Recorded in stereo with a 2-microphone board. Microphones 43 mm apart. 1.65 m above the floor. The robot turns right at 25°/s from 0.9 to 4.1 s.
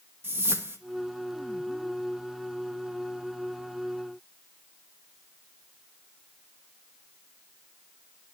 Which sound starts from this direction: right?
A whoosh, at 0.2 s.